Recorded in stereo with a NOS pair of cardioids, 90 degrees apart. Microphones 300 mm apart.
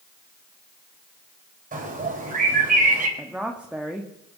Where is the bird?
25° right, 4.5 m.